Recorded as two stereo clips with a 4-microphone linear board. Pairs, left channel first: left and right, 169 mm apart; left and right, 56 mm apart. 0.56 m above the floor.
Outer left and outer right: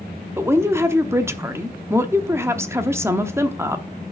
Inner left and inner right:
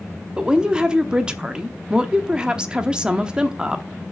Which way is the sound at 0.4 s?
15° right (ahead or behind).